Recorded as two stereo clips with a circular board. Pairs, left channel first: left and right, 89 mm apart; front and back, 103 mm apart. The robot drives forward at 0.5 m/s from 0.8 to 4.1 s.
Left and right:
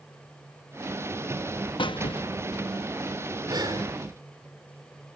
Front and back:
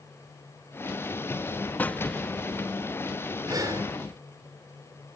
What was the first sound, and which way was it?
A squeak, 70° left.